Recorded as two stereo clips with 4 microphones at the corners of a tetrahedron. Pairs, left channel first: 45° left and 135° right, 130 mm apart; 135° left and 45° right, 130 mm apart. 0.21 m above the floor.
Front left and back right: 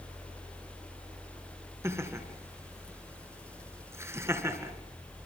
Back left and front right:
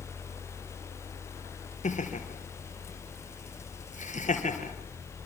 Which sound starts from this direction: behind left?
Laughter, at 1.8 s.